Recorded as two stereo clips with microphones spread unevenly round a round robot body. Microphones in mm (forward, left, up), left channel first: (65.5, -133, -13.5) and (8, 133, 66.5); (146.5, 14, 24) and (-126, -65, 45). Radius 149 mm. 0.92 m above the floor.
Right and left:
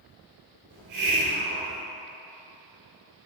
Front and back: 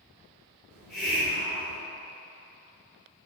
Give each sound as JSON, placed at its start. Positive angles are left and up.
{"t": 0.7, "sound": "a hiss", "azimuth_deg": 110, "distance_m": 3.0}